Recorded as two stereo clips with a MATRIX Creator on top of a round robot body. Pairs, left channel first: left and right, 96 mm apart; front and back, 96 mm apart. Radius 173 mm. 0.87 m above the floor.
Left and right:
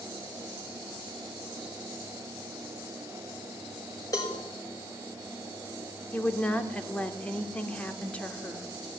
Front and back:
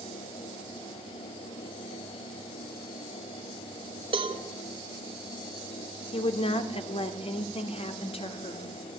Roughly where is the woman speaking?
Ahead.